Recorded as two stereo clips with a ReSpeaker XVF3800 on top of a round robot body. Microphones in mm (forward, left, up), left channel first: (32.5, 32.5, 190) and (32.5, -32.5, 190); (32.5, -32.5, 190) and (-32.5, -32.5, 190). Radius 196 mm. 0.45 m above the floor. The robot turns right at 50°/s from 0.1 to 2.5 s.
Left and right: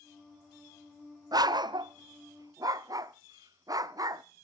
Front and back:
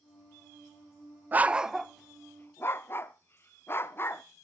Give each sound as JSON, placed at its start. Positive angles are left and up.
{"t": 1.3, "sound": "a dog barking", "azimuth_deg": -115, "distance_m": 0.6}